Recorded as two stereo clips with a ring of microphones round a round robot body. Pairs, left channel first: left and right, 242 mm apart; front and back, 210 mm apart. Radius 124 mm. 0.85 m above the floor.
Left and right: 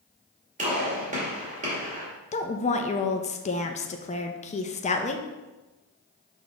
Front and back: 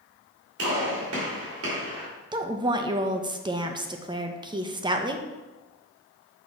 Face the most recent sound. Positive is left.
turn(degrees=125)